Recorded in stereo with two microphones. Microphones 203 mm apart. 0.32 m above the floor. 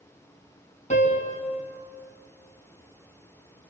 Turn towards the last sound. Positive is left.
turn(degrees=40)  # may be behind; listen again after turning